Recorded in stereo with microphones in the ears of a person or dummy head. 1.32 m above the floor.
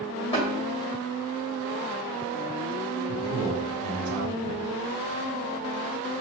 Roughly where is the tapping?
Left.